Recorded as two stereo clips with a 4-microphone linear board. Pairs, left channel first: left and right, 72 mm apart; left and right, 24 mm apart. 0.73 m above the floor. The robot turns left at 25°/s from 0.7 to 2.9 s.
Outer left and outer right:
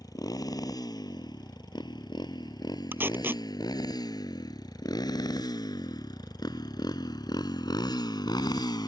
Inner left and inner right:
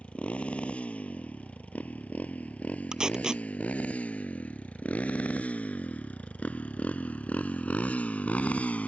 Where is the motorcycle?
60° left (ahead or behind); by 8.9 s 80° left.